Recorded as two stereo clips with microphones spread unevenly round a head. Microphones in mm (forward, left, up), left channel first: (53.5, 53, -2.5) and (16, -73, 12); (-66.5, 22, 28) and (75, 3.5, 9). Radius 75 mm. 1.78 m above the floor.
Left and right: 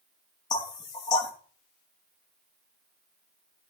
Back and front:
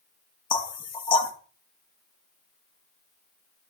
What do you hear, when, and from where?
0.5 s knocking: 135° left, 1.3 m